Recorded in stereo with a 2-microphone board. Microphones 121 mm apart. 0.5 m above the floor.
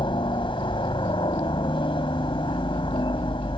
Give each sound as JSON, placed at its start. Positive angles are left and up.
{"t": 0.0, "sound": "a helicopter", "side_deg": 45}